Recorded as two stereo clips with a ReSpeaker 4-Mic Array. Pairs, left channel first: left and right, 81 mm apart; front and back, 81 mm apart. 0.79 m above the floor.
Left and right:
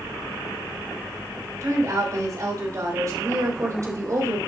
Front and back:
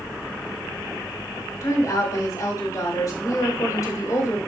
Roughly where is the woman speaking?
Ahead right.